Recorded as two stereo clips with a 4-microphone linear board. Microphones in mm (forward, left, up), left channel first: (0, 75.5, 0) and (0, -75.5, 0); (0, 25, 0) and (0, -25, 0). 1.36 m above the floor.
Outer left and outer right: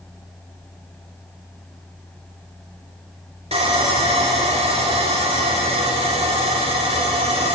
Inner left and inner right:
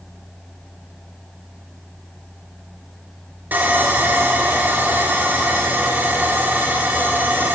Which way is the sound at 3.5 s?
40° right (ahead or behind).